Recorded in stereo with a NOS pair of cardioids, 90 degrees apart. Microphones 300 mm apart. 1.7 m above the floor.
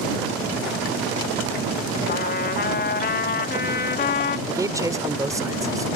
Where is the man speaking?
10° right.